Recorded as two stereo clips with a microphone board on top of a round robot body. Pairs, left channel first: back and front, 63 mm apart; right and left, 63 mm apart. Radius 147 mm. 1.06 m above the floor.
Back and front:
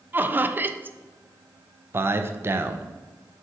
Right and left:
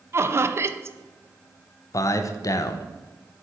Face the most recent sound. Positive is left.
turn(degrees=-55)